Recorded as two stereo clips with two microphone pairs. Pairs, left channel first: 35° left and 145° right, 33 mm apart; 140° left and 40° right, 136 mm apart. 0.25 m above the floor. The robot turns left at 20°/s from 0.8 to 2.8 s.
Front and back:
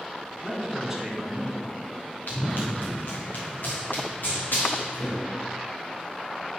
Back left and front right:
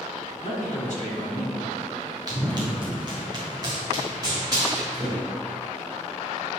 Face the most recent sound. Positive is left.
turn(degrees=25)